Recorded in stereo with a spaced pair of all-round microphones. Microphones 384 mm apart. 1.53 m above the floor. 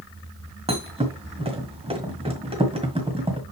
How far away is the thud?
About 1.7 m.